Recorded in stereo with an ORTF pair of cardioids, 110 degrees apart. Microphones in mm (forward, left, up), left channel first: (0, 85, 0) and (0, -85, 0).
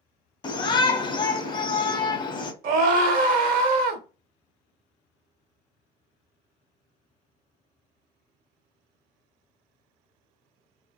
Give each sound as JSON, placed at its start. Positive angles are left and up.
{"t": 0.4, "sound": "a shout", "azimuth_deg": 25, "distance_m": 0.7}
{"t": 2.6, "sound": "a scream", "azimuth_deg": -55, "distance_m": 1.1}